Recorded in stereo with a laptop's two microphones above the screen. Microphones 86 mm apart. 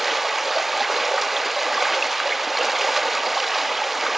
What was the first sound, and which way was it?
Running water, centre (ahead or behind).